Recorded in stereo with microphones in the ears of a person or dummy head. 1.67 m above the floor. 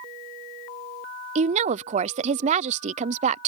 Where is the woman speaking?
30° right (ahead or behind).